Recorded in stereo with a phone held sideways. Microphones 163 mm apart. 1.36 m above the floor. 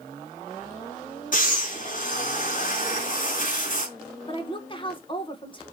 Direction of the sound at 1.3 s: 55° left (ahead or behind).